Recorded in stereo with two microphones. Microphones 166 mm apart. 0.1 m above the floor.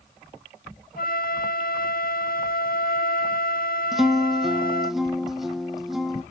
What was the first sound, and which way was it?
A flute, 65° left (ahead or behind).